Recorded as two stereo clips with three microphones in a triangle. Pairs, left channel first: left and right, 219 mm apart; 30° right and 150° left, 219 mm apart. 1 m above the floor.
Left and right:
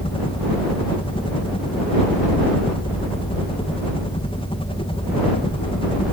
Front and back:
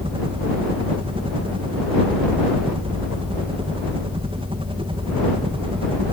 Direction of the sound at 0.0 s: 120° left.